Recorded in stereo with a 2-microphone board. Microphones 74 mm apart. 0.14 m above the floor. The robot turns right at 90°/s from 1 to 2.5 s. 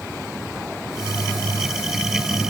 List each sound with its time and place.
Only background noise.